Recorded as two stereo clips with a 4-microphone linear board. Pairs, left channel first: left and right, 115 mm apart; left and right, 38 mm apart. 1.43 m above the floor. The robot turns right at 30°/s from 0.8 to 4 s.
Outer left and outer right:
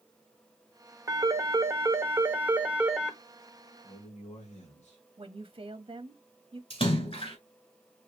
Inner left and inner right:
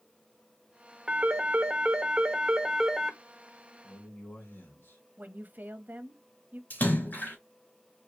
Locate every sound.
1.1 s a phone ringing: 30° right (ahead or behind), 0.8 m; by 3.2 s 5° right (ahead or behind), 0.8 m
3.8 s a man speaking: 75° left (ahead or behind), 2.5 m; by 5.0 s 80° left, 2.5 m
5.2 s a woman speaking: 50° right (ahead or behind), 0.8 m
6.7 s a splash: 55° left (ahead or behind), 2.5 m